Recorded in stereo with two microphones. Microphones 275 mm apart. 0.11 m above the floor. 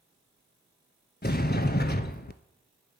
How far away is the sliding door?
About 0.5 m.